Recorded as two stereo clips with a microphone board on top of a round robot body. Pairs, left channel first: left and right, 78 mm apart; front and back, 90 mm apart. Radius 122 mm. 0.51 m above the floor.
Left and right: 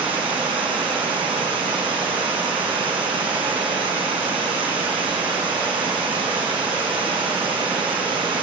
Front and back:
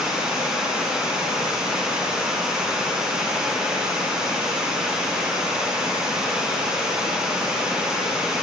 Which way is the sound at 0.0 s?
100° right.